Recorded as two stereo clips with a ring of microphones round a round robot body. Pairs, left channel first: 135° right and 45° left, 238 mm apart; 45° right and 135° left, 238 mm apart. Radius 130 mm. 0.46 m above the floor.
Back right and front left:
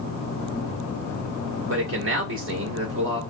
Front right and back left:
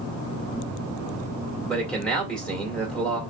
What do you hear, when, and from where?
1.6 s a man speaking: 40° left, 1.8 m